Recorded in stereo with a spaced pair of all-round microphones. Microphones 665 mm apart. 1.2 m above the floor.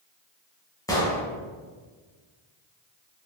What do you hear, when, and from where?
0.9 s an explosion: 5° left (ahead or behind), 0.7 m